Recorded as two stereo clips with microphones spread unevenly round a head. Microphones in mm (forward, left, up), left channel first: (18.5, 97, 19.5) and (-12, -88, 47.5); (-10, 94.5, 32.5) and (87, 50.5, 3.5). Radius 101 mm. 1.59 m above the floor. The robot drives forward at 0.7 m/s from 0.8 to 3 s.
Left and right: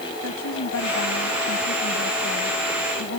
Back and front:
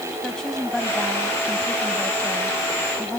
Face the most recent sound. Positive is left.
turn(degrees=80)